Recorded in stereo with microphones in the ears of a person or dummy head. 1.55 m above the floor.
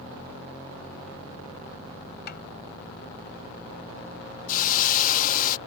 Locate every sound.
2.3 s a snare drum: 55° left (ahead or behind)
4.5 s a hiss: 50° left (ahead or behind)